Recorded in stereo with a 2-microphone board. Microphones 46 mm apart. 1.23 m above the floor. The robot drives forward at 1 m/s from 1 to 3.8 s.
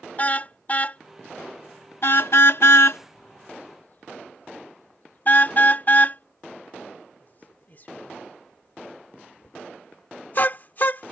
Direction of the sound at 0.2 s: 35° left (ahead or behind).